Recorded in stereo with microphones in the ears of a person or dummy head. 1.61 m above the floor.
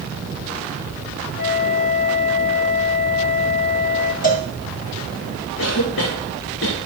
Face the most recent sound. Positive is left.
turn(degrees=75)  # may be behind; listen again after turning